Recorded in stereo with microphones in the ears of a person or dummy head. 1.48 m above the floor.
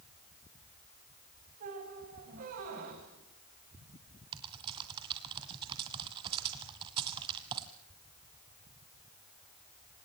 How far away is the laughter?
I don't hear laughter.